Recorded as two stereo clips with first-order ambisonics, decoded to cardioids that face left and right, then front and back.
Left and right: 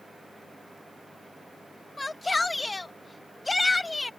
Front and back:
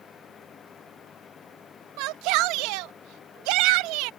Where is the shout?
170° left.